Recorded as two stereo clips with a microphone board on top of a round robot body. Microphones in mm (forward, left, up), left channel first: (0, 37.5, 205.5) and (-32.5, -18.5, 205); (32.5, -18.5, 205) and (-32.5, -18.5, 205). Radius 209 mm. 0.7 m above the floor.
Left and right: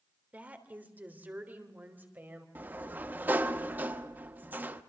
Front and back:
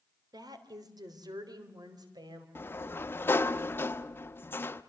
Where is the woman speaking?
170° left, 3 m; by 2.5 s 175° left, 4.5 m.